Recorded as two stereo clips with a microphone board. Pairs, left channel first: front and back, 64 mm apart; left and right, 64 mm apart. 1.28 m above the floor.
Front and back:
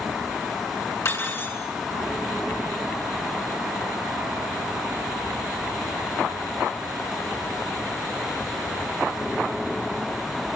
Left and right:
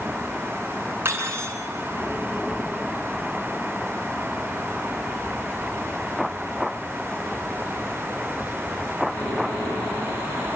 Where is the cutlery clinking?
40° right, 9 m.